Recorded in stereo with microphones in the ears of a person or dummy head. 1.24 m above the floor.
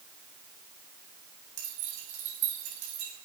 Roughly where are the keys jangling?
Right.